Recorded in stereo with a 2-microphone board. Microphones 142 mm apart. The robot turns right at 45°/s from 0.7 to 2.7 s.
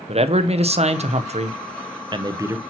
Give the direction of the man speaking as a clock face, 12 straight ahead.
4 o'clock.